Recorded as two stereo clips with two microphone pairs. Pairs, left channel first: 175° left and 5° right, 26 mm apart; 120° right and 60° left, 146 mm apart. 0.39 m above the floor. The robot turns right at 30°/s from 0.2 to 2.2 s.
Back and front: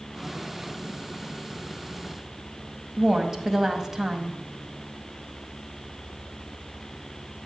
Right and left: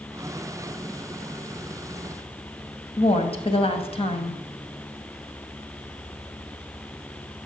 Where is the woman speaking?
75° right, 1.9 m.